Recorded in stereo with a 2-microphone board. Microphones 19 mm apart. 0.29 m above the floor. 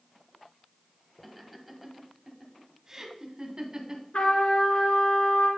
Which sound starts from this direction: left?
A trumpet, at 4.1 s.